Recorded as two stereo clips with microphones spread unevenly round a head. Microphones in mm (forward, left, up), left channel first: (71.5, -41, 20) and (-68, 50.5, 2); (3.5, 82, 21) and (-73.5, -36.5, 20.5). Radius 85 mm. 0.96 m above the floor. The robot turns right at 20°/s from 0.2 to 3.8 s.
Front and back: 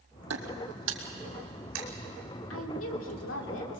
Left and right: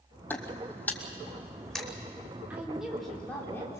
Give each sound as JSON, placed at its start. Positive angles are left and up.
{"t": 0.3, "sound": "footsteps", "azimuth_deg": 135, "distance_m": 2.0}
{"t": 2.5, "sound": "a woman speaking", "azimuth_deg": -40, "distance_m": 3.5}